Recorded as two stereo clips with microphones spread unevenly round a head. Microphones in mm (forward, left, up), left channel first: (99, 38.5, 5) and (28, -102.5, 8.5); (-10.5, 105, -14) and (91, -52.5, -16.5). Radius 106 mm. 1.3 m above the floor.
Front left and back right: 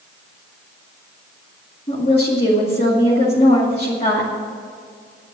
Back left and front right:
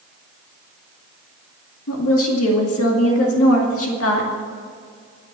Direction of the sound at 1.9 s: 130° left.